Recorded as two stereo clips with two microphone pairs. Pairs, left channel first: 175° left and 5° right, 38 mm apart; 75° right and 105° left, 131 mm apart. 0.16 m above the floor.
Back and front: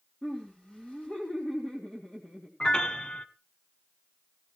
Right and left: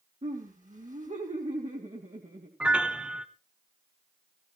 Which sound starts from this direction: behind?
A piano, at 2.6 s.